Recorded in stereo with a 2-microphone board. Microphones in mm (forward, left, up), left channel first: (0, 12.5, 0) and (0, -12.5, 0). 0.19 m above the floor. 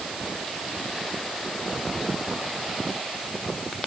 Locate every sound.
Only background noise.